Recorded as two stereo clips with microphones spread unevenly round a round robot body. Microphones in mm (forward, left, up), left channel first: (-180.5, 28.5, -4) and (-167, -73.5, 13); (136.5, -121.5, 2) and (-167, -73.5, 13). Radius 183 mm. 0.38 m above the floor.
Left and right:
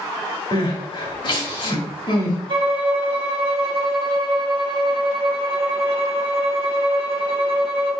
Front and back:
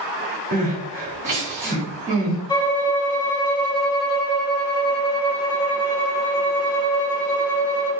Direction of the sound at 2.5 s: 80° right.